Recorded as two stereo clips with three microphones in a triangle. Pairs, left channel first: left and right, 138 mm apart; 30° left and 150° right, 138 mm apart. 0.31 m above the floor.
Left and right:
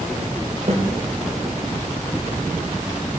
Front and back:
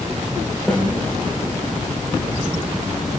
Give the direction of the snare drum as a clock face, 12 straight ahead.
2 o'clock.